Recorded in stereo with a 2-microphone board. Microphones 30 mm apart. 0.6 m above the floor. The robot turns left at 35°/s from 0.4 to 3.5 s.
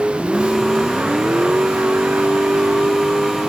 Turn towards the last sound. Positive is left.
turn(degrees=-130)